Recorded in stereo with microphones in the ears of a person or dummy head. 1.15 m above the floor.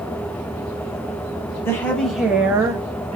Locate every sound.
1.6 s a woman speaking: 10° left (ahead or behind), 1.0 m; by 3.2 s 35° right (ahead or behind), 0.7 m